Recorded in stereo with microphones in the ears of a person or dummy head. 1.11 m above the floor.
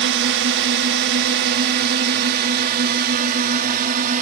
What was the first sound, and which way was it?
A drone, 55° right (ahead or behind).